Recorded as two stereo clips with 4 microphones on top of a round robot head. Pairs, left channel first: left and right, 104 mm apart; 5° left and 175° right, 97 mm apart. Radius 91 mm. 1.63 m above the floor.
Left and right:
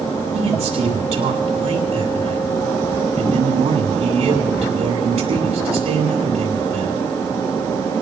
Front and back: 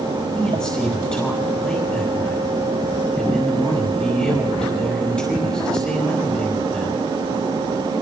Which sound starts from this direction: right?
A man speaking, at 0.3 s.